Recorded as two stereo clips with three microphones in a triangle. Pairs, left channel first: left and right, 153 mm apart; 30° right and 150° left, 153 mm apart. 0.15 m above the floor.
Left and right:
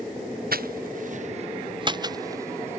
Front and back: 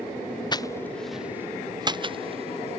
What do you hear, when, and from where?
0.5 s footsteps: 90° right; by 2.8 s 165° right